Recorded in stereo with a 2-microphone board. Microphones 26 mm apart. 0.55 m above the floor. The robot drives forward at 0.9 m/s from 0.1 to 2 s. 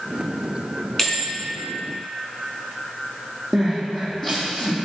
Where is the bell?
15° left (ahead or behind), 2.5 m; by 1.3 s 10° left (ahead or behind), 3 m.